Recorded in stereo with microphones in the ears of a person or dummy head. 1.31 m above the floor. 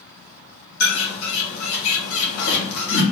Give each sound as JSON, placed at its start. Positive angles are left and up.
{"t": 0.8, "sound": "a bird", "side_deg": 85, "distance_m": 1.4}